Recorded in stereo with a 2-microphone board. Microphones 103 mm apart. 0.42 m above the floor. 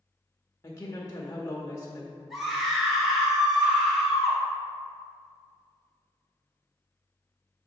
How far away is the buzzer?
No buzzer in this recording.